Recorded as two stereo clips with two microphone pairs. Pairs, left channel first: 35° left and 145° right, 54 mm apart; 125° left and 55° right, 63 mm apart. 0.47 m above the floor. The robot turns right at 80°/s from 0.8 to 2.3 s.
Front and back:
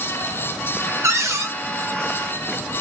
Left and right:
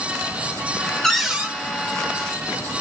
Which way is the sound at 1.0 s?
155° right.